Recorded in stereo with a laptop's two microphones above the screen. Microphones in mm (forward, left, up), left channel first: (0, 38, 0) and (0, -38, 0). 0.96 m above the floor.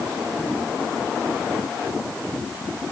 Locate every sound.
Only background noise.